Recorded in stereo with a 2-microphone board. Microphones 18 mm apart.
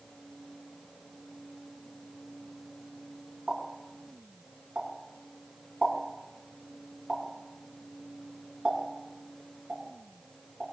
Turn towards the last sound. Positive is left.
turn(degrees=-65)  # may be behind; listen again after turning